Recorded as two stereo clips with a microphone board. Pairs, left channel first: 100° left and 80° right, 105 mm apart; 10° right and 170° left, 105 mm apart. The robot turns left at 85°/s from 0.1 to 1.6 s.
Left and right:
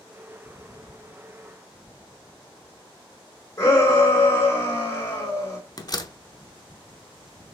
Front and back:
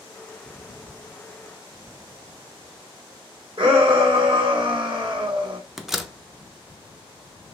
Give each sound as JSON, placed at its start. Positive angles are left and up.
{"t": 3.6, "sound": "a shout", "azimuth_deg": 160, "distance_m": 3.0}
{"t": 5.8, "sound": "a door slam", "azimuth_deg": 85, "distance_m": 0.6}